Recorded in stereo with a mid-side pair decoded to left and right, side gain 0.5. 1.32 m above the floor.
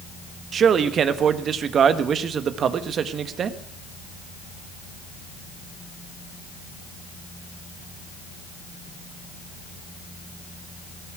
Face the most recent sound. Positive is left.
turn(degrees=-50)